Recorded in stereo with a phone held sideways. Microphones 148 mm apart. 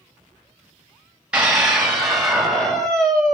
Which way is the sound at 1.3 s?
5° right (ahead or behind).